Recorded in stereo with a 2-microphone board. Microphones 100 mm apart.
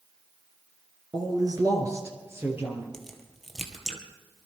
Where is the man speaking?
45° right (ahead or behind), 2.5 m; by 2.8 s 20° right (ahead or behind), 4 m.